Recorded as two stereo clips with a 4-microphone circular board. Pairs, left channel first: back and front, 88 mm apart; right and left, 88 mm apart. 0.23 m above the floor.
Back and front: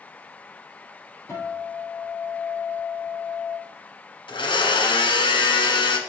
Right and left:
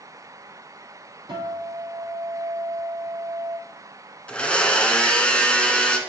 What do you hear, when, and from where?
1.3 s a guitar: 120° left, 3.5 m
4.3 s a blender: 170° right, 1.1 m